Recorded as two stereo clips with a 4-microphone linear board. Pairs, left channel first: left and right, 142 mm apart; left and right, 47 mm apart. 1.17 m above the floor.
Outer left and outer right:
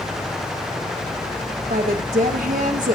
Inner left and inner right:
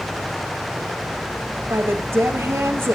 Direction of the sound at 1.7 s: 80° right.